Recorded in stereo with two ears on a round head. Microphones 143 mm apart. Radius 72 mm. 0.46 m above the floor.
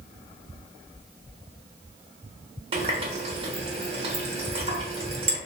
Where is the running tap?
35° right (ahead or behind), 0.7 m.